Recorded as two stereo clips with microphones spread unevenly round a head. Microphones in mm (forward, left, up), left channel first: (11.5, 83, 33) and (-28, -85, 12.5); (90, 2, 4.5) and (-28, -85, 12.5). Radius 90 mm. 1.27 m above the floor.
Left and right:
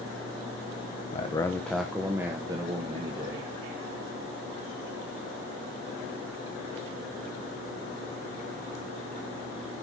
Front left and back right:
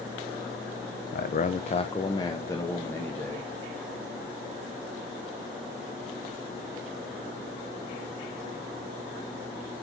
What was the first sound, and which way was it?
A man speaking, 20° left.